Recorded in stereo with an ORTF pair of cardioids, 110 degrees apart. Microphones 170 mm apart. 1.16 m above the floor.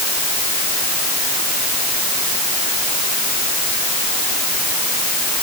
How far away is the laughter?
No laughter in this recording.